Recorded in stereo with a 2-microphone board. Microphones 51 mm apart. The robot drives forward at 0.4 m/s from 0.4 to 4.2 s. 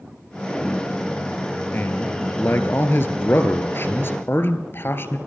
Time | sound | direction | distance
1.7 | a man speaking | 45° left (ahead or behind) | 1.9 m